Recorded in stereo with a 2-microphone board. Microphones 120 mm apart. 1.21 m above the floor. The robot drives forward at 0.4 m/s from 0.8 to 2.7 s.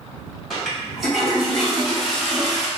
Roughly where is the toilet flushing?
Centre.